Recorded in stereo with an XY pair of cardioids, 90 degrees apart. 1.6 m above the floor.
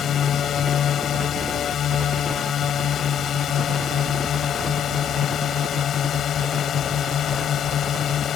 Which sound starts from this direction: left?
A drone, at 0.0 s.